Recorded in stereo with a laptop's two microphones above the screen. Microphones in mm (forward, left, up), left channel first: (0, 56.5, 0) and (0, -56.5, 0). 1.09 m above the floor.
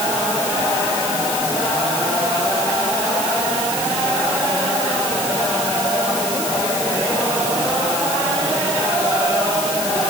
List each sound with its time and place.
Only background noise.